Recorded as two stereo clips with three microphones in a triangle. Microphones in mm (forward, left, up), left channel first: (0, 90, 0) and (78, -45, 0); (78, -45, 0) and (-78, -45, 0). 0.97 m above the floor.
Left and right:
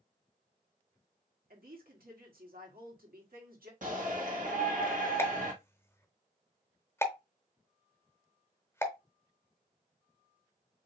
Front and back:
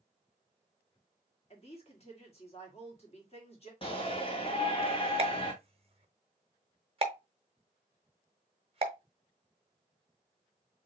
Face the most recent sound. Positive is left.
turn(degrees=-175)